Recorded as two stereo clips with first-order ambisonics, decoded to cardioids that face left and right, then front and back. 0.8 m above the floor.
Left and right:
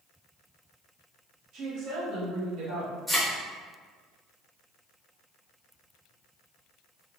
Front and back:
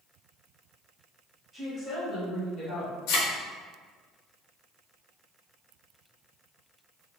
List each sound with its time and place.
1.5 s a woman speaking: 75° right, 1.2 m; by 3.0 s 45° right, 1.6 m
3.1 s a thud: straight ahead, 0.8 m